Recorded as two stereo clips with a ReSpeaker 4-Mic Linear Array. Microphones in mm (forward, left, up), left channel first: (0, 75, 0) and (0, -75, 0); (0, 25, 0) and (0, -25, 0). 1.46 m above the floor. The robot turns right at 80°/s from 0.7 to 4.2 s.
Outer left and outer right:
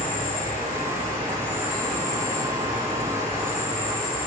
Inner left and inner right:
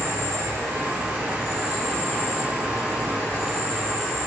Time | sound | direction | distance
0.0 | an insect | 85° right | 1.4 m